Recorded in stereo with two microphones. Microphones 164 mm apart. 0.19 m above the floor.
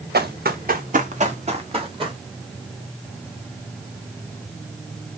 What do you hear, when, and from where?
0.1 s running footsteps: 80° right, 1.3 m; by 2.2 s 30° right (ahead or behind), 2 m